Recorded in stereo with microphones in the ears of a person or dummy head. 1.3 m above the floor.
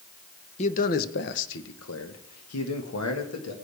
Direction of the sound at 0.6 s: 35° left (ahead or behind).